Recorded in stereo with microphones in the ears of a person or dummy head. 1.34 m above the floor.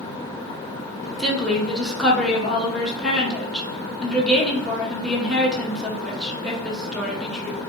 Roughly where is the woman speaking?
Centre.